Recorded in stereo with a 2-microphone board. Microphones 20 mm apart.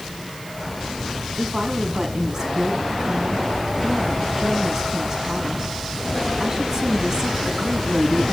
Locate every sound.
1.4 s a woman speaking: 30° right (ahead or behind), 5.5 m